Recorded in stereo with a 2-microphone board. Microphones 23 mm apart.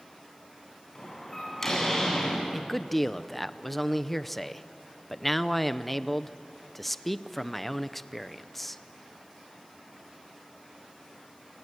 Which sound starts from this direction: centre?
A man speaking, at 2.5 s.